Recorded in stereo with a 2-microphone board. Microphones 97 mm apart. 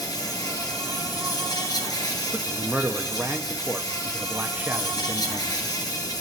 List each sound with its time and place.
0.0 s an insect: 45° left (ahead or behind), 1.9 m
2.3 s a man speaking: 20° right (ahead or behind), 0.7 m